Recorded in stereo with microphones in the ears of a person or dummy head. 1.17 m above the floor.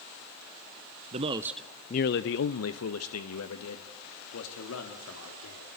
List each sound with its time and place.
1.1 s a man speaking: 35° right (ahead or behind), 0.7 m; by 5.7 s 80° left, 3.5 m